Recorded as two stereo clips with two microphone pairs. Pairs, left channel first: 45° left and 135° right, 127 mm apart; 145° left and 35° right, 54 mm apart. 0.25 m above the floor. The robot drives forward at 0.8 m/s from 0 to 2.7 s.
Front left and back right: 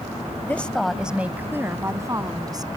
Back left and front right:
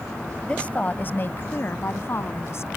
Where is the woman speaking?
100° left; by 2.7 s 165° left.